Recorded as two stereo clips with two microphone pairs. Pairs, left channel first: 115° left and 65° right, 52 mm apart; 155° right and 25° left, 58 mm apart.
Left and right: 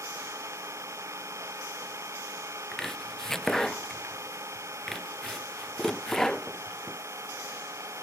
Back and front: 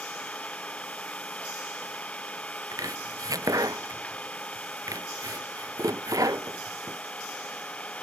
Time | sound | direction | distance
0.0 | an engine running | 85° right | ?
2.7 | chopping | 35° left | ?